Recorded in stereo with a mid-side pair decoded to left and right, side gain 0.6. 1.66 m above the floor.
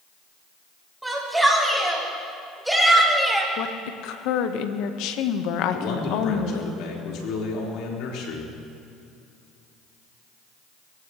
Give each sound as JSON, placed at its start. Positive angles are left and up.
{"t": 1.0, "sound": "a shout", "azimuth_deg": -10, "distance_m": 7.0}
{"t": 3.6, "sound": "a woman speaking", "azimuth_deg": 70, "distance_m": 1.4}
{"t": 5.7, "sound": "a man speaking", "azimuth_deg": 65, "distance_m": 5.0}